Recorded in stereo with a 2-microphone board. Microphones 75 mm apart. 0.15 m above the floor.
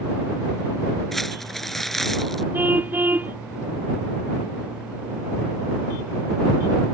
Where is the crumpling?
5° left (ahead or behind).